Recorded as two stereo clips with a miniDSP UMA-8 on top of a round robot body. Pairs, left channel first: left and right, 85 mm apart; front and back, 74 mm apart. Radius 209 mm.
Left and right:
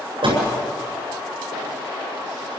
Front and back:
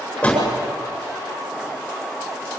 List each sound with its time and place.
0.2 s a door slam: 75° right, 7.5 m